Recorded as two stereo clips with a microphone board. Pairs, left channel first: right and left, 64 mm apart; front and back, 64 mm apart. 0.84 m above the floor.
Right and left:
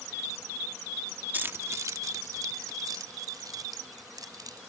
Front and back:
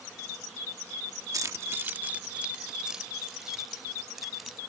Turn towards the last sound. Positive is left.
turn(degrees=90)